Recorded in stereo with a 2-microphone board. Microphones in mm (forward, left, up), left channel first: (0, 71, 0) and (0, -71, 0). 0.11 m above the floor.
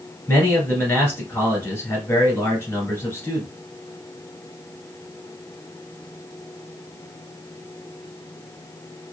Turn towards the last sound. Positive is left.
turn(degrees=15)  # may be behind; listen again after turning